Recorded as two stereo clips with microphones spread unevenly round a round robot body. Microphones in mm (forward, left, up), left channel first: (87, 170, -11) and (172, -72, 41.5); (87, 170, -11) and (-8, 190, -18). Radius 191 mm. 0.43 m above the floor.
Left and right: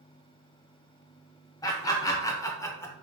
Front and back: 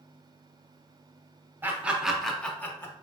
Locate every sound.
1.6 s laughter: 135° left, 0.8 m; by 2.9 s 50° left, 0.9 m